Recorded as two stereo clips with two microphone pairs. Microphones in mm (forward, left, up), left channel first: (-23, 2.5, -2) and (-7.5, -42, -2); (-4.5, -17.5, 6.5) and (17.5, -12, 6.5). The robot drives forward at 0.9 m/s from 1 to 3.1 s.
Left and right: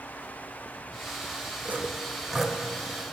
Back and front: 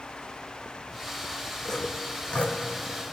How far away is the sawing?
About 0.6 m.